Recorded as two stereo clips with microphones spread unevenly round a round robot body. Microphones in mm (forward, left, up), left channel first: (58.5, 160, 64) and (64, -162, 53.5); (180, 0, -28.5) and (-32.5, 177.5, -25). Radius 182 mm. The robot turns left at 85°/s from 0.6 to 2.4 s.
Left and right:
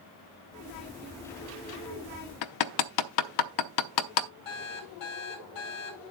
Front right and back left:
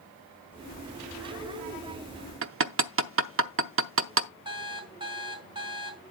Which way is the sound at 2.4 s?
95° left.